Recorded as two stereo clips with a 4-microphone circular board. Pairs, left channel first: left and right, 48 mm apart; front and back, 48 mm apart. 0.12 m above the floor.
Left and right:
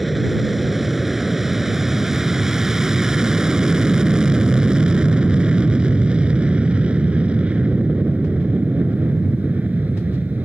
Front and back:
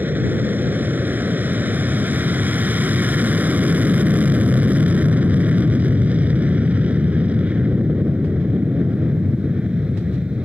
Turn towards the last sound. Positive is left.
turn(degrees=-125)